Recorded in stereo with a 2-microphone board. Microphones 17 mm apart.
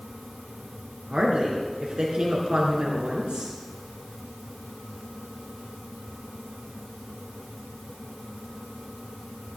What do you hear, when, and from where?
1.1 s a woman speaking: 75° right (ahead or behind), 3.5 m